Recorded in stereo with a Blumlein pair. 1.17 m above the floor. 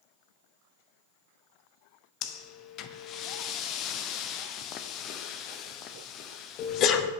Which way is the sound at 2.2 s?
35° left.